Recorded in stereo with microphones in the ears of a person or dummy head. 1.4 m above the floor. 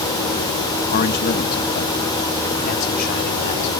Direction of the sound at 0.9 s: 45° left (ahead or behind).